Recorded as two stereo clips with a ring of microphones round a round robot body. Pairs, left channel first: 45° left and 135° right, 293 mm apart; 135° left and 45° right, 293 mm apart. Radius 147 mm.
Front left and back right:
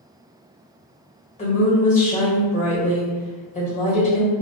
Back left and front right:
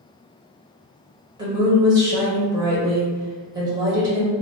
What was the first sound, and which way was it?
A woman speaking, 15° left.